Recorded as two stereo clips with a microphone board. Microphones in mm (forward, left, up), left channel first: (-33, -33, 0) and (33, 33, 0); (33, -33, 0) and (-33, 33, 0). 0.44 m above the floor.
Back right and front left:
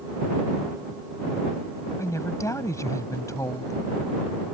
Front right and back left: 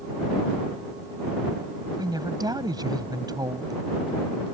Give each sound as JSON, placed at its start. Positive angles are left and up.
{"t": 2.0, "sound": "a woman speaking", "azimuth_deg": 175}